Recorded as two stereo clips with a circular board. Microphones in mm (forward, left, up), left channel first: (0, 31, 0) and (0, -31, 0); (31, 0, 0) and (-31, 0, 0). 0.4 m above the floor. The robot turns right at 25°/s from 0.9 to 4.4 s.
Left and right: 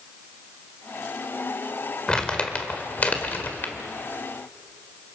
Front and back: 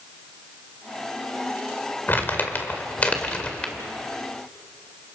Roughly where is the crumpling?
Ahead.